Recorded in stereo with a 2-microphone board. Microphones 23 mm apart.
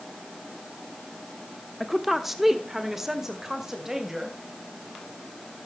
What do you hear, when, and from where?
1.8 s a woman speaking: centre (ahead or behind), 0.9 m; by 4.4 s 15° right (ahead or behind), 3 m